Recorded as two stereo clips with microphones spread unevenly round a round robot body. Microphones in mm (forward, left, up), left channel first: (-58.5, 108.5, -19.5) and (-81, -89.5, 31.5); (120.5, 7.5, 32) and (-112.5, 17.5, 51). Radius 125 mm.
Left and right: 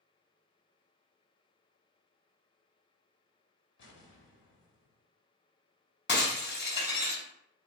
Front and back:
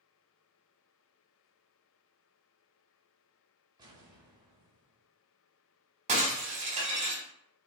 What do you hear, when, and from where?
3.8 s an explosion: 105° left, 2.5 m
6.1 s breaking glass: 115° left, 2.5 m